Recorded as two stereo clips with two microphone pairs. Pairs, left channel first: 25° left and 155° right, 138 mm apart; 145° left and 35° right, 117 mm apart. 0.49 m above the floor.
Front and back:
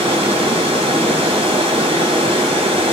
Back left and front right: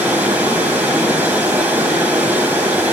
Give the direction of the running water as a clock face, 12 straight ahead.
4 o'clock.